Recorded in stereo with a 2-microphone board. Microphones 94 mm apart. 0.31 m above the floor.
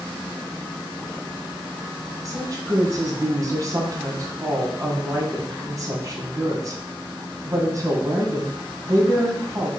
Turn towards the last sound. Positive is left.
turn(degrees=-40)  # may be behind; listen again after turning